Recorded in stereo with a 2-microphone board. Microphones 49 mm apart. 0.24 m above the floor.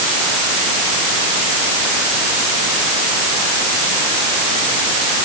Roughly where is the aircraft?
No aircraft in this recording.